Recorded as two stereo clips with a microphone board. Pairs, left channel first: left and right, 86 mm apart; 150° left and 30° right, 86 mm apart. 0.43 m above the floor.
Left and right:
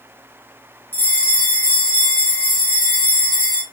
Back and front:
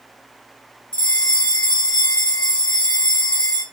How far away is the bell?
About 1.7 m.